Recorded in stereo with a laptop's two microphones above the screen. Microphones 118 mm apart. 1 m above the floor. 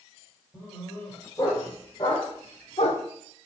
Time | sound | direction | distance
0.5 | a dog barking | 20° left (ahead or behind) | 2 m